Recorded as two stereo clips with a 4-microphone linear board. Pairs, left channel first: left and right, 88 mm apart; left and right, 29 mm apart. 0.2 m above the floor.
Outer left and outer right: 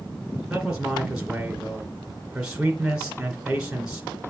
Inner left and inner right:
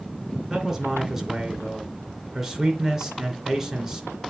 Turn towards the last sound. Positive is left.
turn(degrees=-10)  # may be behind; listen again after turning